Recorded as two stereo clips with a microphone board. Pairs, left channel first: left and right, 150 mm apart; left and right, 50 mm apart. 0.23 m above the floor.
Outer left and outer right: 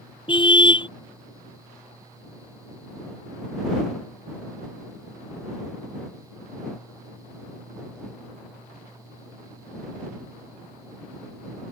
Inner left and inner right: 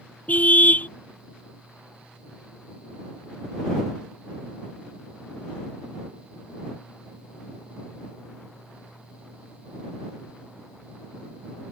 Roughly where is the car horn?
Left.